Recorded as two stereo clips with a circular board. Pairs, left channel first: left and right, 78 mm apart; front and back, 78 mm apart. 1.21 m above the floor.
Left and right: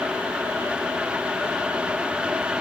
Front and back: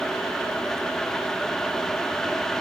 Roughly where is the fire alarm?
I don't hear a fire alarm.